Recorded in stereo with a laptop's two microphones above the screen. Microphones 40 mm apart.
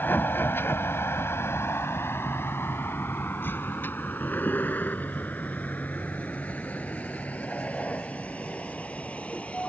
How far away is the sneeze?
No sneeze in this recording.